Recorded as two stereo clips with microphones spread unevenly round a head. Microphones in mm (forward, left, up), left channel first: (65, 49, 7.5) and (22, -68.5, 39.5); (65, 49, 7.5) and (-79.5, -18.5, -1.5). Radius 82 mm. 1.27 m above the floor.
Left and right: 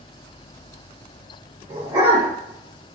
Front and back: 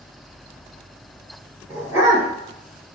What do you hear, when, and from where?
1.7 s a dog barking: 80° right, 1.5 m